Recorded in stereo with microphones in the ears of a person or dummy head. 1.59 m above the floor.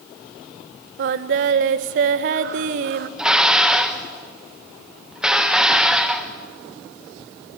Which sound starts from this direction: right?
Singing, at 1.0 s.